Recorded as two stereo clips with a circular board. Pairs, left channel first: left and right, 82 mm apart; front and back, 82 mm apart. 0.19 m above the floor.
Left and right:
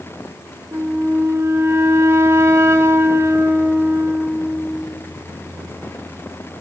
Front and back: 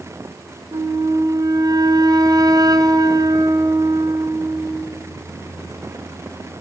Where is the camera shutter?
I don't hear a camera shutter.